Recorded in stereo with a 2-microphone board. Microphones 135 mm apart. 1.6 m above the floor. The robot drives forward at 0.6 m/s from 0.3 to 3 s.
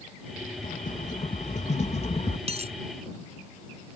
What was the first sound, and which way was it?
A rattle, 70° left (ahead or behind).